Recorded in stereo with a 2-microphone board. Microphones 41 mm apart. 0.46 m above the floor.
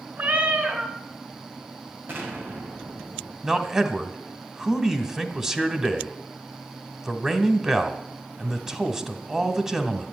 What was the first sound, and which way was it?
A cat meowing, 50° right (ahead or behind).